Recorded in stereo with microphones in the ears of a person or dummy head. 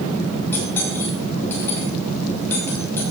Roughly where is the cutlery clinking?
Centre.